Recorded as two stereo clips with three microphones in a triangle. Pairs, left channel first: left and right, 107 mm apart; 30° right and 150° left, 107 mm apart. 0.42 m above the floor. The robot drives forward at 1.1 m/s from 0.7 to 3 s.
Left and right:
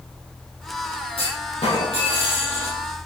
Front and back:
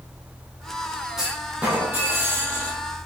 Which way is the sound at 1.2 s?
65° left.